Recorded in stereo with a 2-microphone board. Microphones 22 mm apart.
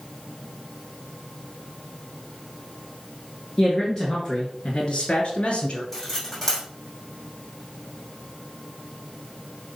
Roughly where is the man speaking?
Centre.